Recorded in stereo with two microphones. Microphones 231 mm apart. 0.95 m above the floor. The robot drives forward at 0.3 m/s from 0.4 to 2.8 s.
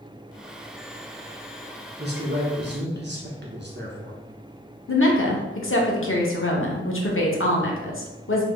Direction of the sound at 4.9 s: 60° left (ahead or behind).